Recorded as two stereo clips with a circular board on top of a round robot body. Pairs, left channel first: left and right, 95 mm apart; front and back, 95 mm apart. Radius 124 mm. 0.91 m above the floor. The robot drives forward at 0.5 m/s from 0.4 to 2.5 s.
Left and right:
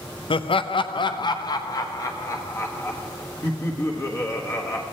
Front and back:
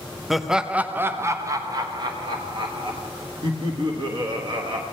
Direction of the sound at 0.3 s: 95° left.